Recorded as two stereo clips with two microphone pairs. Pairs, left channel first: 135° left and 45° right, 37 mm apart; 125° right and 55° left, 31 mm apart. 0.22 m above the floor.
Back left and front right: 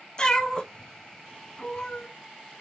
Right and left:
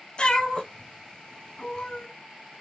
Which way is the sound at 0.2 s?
165° right.